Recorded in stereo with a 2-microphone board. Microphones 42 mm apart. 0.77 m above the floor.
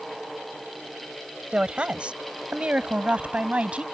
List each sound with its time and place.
1.5 s a woman speaking: 20° right (ahead or behind); by 3.8 s 25° right (ahead or behind)